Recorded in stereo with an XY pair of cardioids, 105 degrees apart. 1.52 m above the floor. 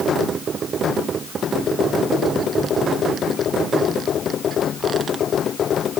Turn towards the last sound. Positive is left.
No sound to turn to.